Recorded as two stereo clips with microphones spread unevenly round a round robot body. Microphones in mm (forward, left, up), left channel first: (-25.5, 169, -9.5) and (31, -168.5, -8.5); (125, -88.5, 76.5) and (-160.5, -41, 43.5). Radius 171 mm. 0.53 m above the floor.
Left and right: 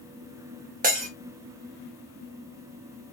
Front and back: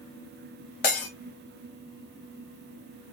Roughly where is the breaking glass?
Ahead.